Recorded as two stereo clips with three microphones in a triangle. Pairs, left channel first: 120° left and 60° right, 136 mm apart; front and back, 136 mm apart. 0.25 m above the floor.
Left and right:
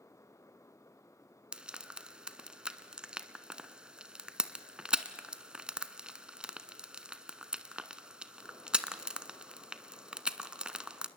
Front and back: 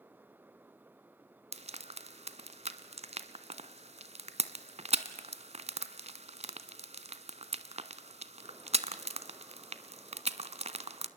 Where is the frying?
140° right, 0.8 m.